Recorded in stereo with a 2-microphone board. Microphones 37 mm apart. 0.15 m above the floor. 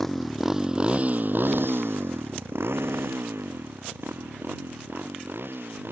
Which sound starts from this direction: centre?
A motorcycle, at 0.0 s.